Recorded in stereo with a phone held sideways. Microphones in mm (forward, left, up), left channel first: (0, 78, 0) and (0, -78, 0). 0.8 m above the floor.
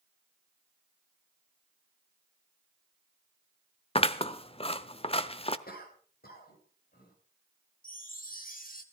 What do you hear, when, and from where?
4.0 s scissors: 40° left (ahead or behind), 0.8 m
5.7 s a cough: 80° left, 5 m
7.8 s a chime: 65° left (ahead or behind), 1.8 m